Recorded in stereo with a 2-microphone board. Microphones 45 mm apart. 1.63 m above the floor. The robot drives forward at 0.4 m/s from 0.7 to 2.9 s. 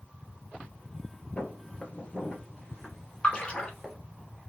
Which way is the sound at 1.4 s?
35° left (ahead or behind).